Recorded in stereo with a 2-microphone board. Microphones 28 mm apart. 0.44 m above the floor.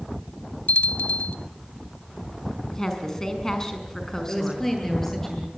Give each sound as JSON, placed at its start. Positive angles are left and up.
{"t": 0.7, "sound": "a bell", "side_deg": 80, "distance_m": 0.6}
{"t": 2.7, "sound": "a woman speaking", "side_deg": 15, "distance_m": 5.5}
{"t": 4.3, "sound": "a woman speaking", "side_deg": 10, "distance_m": 10.0}